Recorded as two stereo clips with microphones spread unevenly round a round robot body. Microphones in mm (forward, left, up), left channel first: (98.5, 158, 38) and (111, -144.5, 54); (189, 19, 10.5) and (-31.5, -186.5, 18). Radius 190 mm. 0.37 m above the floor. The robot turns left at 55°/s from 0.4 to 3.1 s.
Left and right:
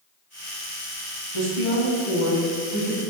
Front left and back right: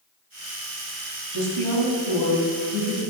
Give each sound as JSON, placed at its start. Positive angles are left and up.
{"t": 1.3, "sound": "a woman speaking", "azimuth_deg": -90, "distance_m": 2.5}